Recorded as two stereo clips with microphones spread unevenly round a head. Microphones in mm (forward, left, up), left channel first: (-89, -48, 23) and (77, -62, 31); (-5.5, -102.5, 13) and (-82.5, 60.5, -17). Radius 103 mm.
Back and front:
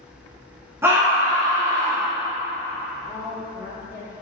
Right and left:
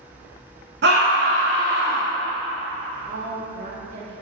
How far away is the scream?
About 1.2 m.